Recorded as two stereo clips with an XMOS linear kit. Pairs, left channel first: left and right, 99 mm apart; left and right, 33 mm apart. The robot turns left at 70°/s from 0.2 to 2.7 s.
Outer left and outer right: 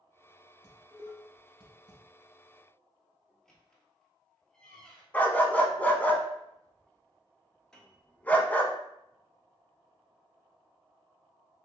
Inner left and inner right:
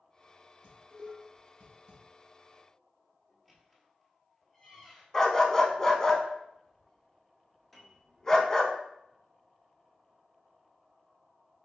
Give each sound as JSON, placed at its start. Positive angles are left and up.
{"t": 0.6, "sound": "dishes clattering", "side_deg": -40, "distance_m": 1.7}
{"t": 3.3, "sound": "a squeak", "side_deg": 5, "distance_m": 0.9}
{"t": 5.1, "sound": "a dog barking", "side_deg": 15, "distance_m": 0.6}
{"t": 7.7, "sound": "a piano", "side_deg": 5, "distance_m": 0.9}